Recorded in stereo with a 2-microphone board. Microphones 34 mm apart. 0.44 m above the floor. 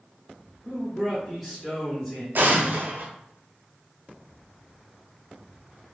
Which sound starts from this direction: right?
An explosion, at 2.4 s.